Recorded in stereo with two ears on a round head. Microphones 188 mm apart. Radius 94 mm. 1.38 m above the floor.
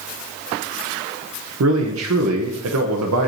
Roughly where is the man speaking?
Right.